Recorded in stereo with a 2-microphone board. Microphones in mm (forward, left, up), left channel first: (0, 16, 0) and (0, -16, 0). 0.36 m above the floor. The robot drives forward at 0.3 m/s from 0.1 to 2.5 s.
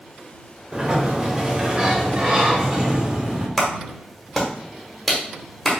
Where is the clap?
10° left (ahead or behind), 1.3 m.